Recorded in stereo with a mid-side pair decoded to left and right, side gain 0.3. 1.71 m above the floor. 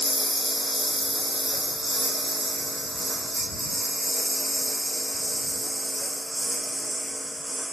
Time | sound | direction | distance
0.0 | a lawn mower | straight ahead | ?